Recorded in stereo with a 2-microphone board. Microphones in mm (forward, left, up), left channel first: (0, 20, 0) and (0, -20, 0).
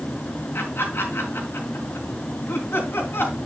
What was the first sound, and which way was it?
Laughter, 80° left.